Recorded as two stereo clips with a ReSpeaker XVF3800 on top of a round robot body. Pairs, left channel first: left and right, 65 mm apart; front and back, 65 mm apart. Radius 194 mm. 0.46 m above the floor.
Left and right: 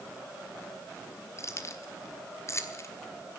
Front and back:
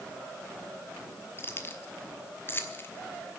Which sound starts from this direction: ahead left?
Keys jangling, at 1.4 s.